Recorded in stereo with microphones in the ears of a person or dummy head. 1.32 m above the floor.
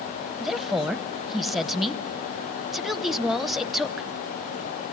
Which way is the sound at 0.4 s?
Centre (ahead or behind).